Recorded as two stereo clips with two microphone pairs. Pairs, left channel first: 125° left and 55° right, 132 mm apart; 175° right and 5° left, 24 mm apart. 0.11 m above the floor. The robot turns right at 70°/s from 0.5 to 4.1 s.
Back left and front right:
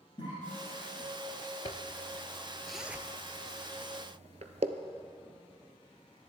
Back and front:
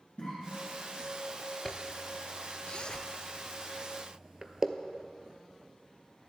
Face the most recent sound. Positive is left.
turn(degrees=-50)